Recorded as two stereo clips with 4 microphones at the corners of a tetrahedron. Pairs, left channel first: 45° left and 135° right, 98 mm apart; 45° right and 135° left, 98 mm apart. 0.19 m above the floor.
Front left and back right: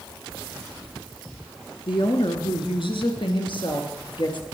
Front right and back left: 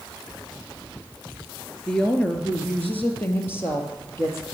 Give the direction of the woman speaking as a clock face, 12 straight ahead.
11 o'clock.